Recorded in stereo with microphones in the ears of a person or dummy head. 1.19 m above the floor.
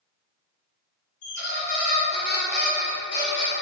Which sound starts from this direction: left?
A squeak, at 1.2 s.